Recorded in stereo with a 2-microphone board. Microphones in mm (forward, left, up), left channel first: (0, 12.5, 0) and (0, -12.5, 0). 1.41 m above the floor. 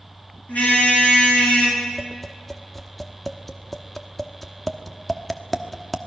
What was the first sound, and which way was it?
A car horn, 75° left (ahead or behind).